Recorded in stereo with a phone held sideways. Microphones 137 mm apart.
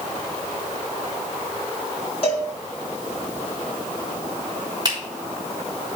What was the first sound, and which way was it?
A cowbell, 45° left (ahead or behind).